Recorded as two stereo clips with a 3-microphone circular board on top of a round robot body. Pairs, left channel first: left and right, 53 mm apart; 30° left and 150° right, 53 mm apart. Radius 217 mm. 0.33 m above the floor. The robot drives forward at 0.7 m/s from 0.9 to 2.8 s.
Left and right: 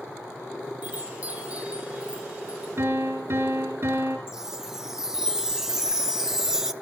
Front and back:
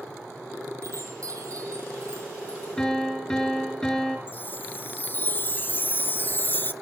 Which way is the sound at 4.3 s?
15° right.